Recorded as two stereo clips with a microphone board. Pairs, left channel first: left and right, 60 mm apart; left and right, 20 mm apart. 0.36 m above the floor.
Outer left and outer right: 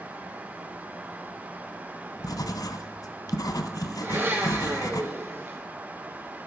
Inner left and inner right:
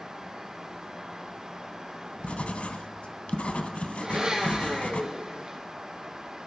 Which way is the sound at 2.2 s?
80° left.